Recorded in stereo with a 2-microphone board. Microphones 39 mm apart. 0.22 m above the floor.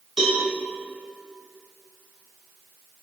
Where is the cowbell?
5° right (ahead or behind), 0.9 m.